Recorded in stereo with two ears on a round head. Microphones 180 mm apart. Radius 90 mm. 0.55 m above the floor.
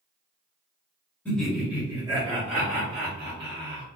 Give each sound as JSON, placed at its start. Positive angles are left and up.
{"t": 1.2, "sound": "laughter", "side_deg": 5, "distance_m": 1.0}